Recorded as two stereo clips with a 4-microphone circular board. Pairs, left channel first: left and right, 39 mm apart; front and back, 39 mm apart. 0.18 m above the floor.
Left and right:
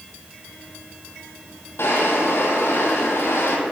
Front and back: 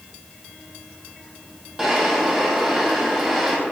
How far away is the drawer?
About 2 m.